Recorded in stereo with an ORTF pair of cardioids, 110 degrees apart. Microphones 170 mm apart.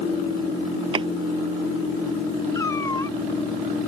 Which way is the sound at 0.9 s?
30° right.